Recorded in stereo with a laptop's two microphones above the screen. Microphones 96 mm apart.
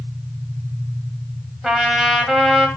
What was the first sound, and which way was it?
A trumpet, 5° right (ahead or behind).